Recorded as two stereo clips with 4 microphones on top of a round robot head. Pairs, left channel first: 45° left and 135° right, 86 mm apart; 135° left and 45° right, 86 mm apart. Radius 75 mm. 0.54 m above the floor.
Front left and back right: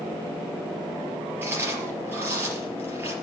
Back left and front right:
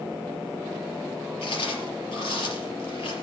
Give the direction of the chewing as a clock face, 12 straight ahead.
7 o'clock.